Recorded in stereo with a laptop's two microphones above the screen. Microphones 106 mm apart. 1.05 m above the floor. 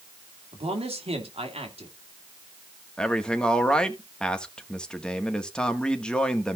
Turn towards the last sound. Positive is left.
turn(degrees=10)  # may be behind; listen again after turning